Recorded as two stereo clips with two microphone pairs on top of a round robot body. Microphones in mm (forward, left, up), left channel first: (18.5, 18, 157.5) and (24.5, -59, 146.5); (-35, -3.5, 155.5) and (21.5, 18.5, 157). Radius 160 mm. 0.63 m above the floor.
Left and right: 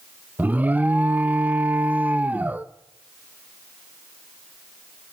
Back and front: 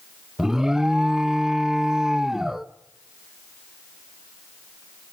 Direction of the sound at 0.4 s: 55° right.